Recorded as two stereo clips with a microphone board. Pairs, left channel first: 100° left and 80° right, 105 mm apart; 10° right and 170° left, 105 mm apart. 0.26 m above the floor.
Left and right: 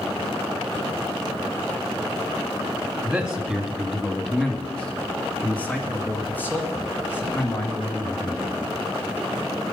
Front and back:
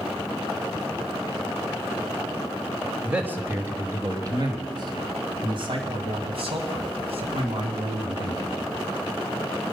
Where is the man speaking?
135° right, 1.2 m; by 8.5 s 165° left, 3 m.